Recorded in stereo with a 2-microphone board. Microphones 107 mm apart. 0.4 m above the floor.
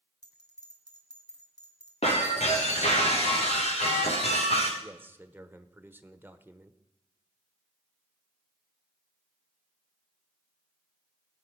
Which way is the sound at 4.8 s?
20° right (ahead or behind).